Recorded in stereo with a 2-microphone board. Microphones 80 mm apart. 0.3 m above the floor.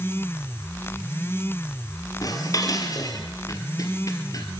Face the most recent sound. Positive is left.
turn(degrees=50)  # may be behind; listen again after turning